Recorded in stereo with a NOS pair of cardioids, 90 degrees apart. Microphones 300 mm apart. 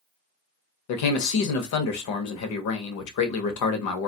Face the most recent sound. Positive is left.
turn(degrees=70)